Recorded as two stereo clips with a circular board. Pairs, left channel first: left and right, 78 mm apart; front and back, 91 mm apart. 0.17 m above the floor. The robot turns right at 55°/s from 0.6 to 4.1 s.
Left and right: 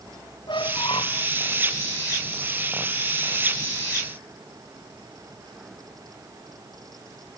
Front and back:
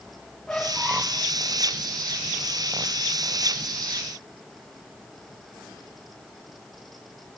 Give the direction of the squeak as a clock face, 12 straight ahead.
9 o'clock.